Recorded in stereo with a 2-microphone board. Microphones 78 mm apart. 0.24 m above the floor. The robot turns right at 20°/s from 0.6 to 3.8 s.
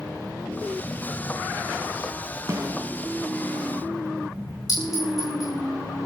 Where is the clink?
55° left (ahead or behind), 10 m.